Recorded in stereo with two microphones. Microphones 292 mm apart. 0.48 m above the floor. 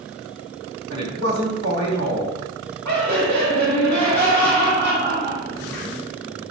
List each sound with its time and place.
0.9 s a man speaking: 70° right (ahead or behind), 3.5 m
2.9 s laughter: 75° right (ahead or behind), 4 m